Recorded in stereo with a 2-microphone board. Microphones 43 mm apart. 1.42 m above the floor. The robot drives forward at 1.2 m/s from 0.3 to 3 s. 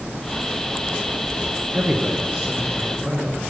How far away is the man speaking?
About 0.8 m.